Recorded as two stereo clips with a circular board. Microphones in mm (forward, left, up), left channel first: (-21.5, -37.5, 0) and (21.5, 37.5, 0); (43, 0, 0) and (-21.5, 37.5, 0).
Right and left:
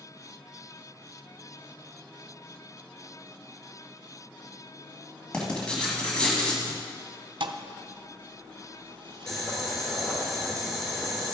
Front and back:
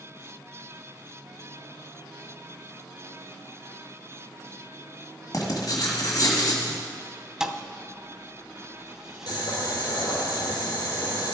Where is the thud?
70° left, 0.8 m.